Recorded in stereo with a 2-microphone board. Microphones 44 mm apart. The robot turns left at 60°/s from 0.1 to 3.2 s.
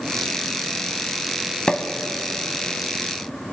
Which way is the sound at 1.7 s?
20° left (ahead or behind).